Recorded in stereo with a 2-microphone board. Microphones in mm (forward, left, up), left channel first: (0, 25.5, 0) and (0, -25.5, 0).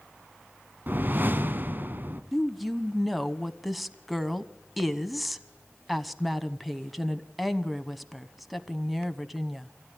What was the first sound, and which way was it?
A whoosh, 40° right (ahead or behind).